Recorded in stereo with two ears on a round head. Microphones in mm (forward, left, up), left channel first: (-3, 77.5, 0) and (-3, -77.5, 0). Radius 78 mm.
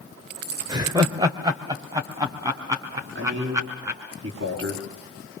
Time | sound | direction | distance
0.7 | laughter | 25° right (ahead or behind) | 1.4 m
3.1 | a man speaking | 75° right (ahead or behind) | 6 m